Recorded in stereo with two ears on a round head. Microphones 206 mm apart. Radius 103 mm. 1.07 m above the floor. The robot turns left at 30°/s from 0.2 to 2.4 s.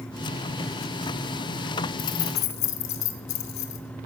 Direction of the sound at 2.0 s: 85° left.